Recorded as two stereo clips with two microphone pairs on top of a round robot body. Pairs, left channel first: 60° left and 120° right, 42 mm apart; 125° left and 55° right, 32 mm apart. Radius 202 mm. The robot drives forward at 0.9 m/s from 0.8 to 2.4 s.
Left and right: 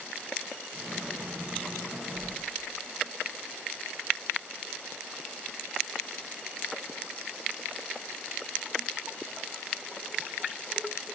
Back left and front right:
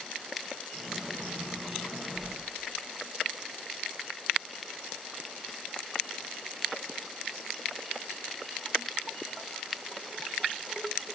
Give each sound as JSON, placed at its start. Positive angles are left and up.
{"t": 2.1, "sound": "a whoosh", "azimuth_deg": -145, "distance_m": 1.1}